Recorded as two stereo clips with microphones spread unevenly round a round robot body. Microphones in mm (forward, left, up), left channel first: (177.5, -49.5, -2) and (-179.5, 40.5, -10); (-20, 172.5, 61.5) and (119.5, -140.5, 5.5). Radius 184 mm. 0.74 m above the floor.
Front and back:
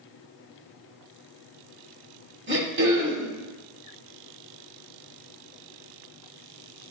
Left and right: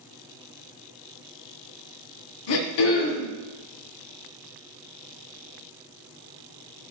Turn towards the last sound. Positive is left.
turn(degrees=105)